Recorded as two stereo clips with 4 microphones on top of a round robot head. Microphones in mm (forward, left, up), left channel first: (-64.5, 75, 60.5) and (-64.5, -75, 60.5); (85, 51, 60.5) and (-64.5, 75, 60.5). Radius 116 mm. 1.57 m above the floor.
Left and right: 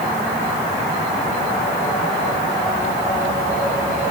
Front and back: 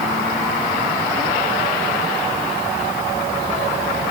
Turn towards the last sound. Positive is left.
No sound to turn to.